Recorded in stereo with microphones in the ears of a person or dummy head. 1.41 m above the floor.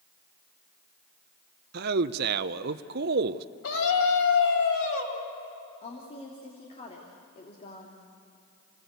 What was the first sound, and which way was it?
A man speaking, 50° right (ahead or behind).